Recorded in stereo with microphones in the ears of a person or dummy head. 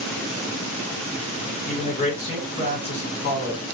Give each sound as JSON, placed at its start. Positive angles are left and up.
{"t": 1.6, "sound": "a man speaking", "side_deg": 45, "distance_m": 1.2}